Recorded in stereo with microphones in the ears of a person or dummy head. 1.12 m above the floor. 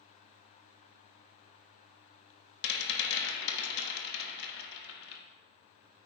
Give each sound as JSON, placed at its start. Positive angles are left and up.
{"t": 2.6, "sound": "a rattle", "side_deg": 55, "distance_m": 1.2}